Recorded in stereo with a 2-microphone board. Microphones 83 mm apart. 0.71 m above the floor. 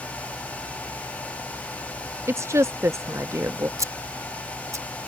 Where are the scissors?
40° right (ahead or behind).